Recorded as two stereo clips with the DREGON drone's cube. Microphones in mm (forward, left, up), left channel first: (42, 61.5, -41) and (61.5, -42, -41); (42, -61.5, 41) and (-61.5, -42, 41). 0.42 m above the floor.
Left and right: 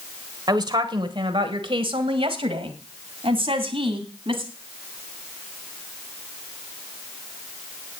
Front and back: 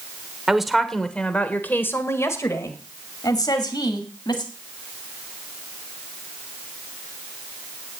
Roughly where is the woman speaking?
Right.